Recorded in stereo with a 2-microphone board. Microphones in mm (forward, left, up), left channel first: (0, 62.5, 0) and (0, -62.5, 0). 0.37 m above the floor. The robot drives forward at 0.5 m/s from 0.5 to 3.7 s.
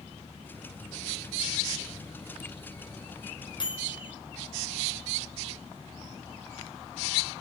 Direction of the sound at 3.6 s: 35° left (ahead or behind).